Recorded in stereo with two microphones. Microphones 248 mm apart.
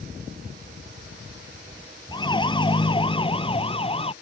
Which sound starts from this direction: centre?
A siren, at 2.1 s.